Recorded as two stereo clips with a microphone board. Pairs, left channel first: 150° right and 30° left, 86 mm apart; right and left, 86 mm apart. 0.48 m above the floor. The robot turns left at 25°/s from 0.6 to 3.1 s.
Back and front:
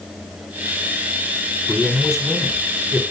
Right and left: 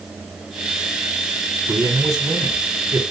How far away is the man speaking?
About 1.5 m.